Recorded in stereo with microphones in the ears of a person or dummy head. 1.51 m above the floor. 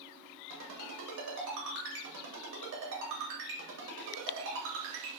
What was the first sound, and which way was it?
A ringtone, 65° right (ahead or behind).